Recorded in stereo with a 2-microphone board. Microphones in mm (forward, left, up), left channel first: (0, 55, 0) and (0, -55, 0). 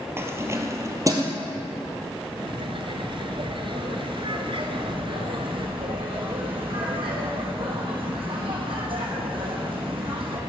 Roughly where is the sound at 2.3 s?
Right.